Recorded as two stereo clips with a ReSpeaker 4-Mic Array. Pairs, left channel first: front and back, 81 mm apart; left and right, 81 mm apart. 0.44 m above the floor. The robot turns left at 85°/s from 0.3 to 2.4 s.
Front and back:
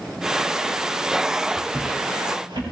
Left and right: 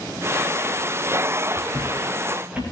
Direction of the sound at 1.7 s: 105° right.